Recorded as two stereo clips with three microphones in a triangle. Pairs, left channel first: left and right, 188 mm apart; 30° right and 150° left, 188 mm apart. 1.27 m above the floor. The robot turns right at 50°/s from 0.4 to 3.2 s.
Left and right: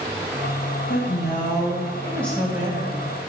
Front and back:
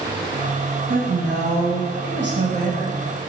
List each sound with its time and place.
0.9 s a woman speaking: 105° left, 1.5 m; by 3.0 s 150° right, 1.5 m